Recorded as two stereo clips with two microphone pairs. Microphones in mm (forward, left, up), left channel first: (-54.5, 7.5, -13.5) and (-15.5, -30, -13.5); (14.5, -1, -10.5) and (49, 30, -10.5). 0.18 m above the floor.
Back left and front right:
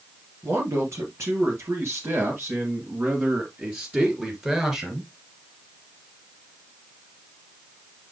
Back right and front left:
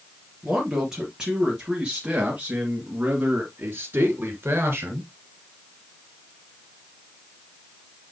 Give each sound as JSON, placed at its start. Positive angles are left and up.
{"t": 0.4, "sound": "a man speaking", "azimuth_deg": -35, "distance_m": 3.5}